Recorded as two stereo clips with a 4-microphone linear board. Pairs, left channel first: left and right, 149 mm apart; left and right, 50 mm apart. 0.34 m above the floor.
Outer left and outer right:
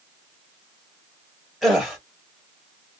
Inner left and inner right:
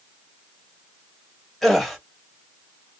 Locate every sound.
1.6 s a gasp: centre (ahead or behind), 1.3 m